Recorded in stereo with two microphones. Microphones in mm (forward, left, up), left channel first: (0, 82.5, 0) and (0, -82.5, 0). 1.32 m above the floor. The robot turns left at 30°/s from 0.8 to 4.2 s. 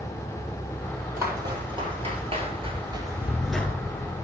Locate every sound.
1.2 s footsteps: 15° right (ahead or behind), 2.5 m; by 3.7 s 10° left (ahead or behind), 1.3 m